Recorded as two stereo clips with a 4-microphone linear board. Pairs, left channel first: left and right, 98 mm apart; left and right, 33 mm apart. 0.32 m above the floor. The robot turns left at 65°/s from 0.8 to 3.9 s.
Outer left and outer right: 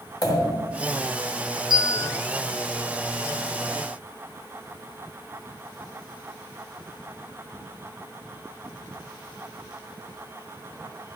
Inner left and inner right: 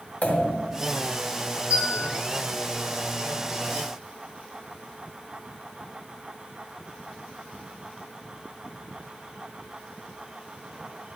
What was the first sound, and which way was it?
A pop, 35° left (ahead or behind).